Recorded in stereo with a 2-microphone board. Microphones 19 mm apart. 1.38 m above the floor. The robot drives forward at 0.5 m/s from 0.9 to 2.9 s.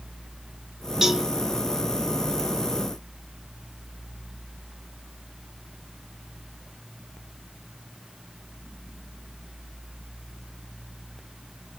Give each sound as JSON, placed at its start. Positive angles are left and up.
{"t": 1.0, "sound": "a cowbell", "side_deg": -40, "distance_m": 1.1}